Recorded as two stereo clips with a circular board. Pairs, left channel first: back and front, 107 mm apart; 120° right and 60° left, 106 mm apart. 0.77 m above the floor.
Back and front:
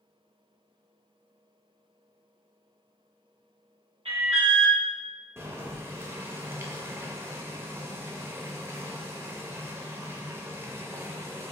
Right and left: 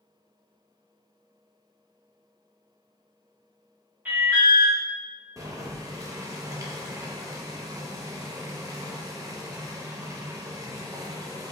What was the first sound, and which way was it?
An alarm, 10° right.